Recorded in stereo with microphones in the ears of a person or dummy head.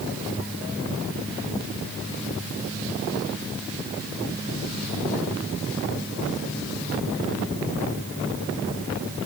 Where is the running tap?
No running tap in this recording.